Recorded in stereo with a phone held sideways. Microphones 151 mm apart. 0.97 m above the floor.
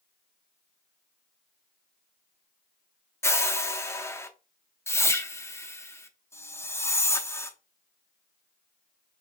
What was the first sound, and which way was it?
A whoosh, 15° left (ahead or behind).